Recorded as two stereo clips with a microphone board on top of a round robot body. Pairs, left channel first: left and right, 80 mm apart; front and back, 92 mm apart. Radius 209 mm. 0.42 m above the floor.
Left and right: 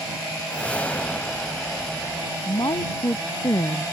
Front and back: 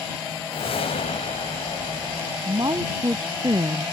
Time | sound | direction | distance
0.5 | a whoosh | 15° left | ?
2.5 | a woman speaking | 130° left | ?